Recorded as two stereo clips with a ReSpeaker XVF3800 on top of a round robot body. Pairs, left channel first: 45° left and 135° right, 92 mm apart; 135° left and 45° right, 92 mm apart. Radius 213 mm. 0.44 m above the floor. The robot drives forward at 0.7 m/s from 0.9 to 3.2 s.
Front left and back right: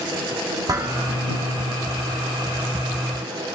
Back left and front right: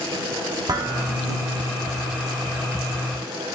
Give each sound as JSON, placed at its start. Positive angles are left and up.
{"t": 0.7, "sound": "dishes clattering", "azimuth_deg": -85, "distance_m": 1.9}